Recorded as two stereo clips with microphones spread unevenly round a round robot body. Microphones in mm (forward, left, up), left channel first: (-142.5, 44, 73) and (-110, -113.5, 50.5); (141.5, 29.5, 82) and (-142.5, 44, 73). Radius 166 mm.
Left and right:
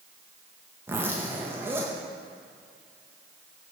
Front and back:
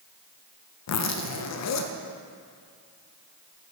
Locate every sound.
0.9 s a zipper: 10° right, 0.8 m